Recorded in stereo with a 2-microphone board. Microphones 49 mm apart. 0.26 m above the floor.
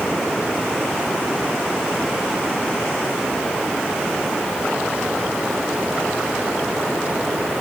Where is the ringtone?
I don't hear a ringtone.